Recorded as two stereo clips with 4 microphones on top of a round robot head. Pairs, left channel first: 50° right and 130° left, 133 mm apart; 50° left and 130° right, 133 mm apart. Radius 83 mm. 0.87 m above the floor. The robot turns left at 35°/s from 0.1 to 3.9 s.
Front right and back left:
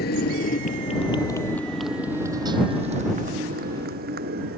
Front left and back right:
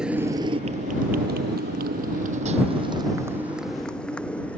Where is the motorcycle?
45° right; by 4.6 s 130° left.